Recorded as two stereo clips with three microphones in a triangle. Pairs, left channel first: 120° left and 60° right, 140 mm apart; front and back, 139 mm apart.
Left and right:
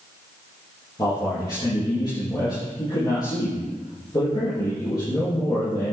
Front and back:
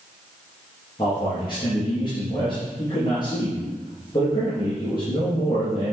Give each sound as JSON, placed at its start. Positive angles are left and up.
{"t": 1.0, "sound": "a man speaking", "azimuth_deg": 60, "distance_m": 4.5}